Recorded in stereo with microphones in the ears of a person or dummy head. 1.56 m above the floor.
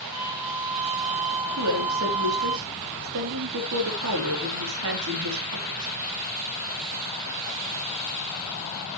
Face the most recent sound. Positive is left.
turn(degrees=-75)  # may be behind; listen again after turning